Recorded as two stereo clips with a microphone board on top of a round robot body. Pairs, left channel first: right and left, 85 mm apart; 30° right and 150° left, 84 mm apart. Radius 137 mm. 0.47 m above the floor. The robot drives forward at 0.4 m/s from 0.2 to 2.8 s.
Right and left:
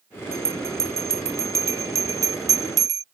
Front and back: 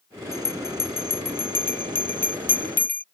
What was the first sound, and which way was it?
A bell, 30° left.